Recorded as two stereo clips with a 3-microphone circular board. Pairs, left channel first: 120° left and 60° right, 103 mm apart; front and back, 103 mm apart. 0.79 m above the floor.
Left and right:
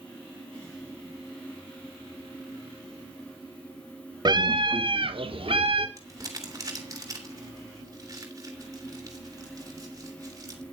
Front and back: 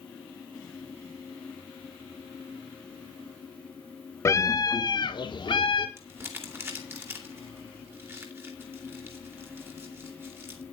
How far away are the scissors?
No scissors in this recording.